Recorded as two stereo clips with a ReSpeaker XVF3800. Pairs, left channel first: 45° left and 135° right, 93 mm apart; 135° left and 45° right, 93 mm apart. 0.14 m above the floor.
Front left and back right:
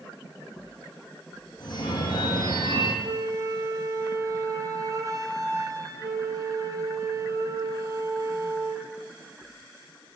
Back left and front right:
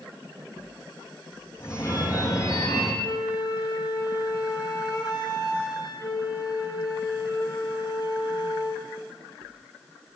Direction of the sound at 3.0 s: 175° left.